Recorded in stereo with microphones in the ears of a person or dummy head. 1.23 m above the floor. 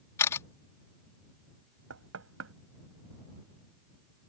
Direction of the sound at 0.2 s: 20° left (ahead or behind).